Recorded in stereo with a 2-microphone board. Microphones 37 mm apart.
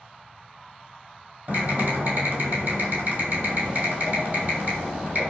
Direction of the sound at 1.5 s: 55° right (ahead or behind).